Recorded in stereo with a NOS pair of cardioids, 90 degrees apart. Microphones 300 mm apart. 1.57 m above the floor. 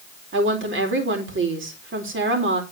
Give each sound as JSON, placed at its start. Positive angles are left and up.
{"t": 0.3, "sound": "a woman speaking", "azimuth_deg": -40, "distance_m": 4.0}